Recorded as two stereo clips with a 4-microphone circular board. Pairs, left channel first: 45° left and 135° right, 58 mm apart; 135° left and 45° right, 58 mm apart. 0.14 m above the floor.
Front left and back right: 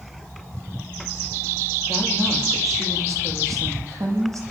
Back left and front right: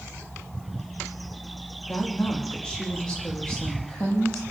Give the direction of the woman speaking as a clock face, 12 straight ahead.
5 o'clock.